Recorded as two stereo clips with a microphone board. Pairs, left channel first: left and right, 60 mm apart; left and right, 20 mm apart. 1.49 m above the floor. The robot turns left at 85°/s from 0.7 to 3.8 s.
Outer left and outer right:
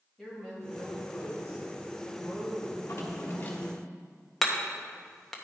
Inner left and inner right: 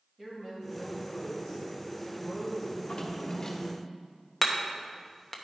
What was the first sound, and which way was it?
A woman speaking, 175° left.